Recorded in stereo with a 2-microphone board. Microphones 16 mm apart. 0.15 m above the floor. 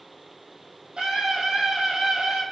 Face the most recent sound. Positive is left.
turn(degrees=-55)  # may be behind; listen again after turning